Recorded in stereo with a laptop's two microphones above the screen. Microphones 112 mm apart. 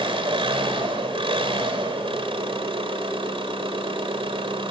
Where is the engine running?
55° right (ahead or behind), 2.5 m.